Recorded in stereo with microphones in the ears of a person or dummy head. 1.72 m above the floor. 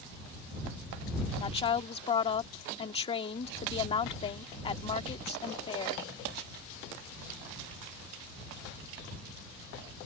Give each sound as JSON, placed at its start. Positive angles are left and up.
{"t": 1.4, "sound": "a woman speaking", "side_deg": 30}